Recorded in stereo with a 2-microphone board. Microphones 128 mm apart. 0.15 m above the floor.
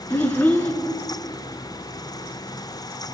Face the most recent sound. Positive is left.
turn(degrees=15)  # may be behind; listen again after turning